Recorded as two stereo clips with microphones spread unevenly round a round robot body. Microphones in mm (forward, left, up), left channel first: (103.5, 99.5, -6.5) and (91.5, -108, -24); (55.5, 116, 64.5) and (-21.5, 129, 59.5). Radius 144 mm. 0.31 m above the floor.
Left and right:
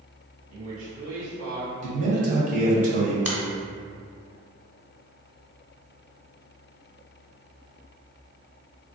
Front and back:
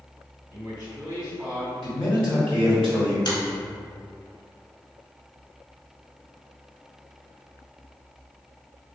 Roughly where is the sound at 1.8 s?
Right.